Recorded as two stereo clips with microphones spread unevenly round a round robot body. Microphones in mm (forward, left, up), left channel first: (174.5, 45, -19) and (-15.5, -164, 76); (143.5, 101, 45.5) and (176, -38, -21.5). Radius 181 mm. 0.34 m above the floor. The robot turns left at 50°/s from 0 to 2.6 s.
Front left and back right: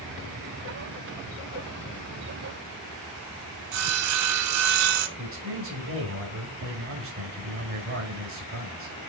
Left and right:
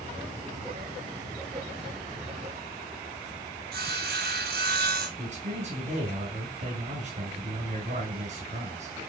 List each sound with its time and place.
3.7 s sawing: 110° right, 0.9 m
5.2 s a man speaking: 85° right, 3.5 m